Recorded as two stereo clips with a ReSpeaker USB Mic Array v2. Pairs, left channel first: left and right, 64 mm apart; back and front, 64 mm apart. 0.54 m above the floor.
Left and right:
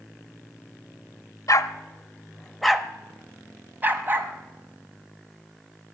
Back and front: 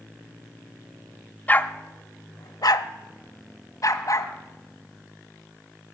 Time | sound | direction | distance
1.5 | a dog barking | 115° left | 0.6 m